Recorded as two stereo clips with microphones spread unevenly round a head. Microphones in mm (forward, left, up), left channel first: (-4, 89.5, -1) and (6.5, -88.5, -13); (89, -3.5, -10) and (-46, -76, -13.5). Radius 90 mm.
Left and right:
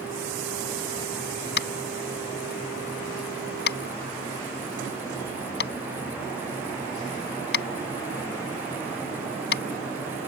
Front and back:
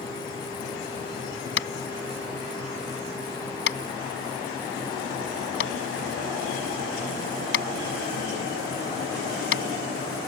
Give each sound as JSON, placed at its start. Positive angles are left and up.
{"t": 1.6, "sound": "tapping", "azimuth_deg": 60}